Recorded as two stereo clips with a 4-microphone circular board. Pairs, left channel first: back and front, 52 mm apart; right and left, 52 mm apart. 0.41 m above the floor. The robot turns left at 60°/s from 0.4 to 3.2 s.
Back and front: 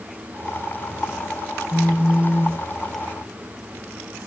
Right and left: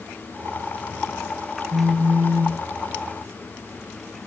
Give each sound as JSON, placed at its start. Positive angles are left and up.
{"t": 1.7, "sound": "a phone buzzing", "azimuth_deg": 100, "distance_m": 2.0}